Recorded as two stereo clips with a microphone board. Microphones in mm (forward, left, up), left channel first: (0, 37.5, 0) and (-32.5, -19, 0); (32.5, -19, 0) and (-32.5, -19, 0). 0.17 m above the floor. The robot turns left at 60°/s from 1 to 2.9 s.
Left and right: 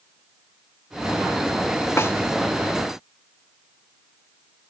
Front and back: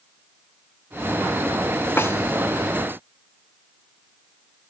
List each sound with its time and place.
2.0 s a snare drum: 35° left, 1.3 m; by 2.1 s 25° left, 1.3 m